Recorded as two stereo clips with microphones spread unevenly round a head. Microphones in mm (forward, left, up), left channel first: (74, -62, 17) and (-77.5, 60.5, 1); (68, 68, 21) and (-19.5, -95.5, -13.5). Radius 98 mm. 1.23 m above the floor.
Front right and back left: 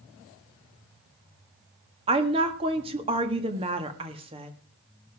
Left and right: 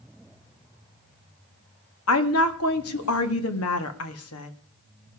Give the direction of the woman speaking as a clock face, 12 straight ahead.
9 o'clock.